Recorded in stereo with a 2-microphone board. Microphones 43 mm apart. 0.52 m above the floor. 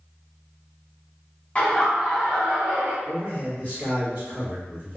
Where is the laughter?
30° left (ahead or behind), 1.0 m; by 3.0 s 40° right (ahead or behind), 1.4 m.